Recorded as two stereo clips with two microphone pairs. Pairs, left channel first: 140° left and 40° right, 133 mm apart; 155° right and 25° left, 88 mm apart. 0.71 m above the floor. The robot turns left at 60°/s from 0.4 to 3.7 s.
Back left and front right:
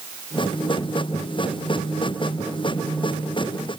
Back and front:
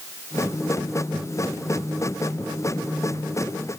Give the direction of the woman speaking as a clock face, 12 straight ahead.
I don't hear a woman speaking.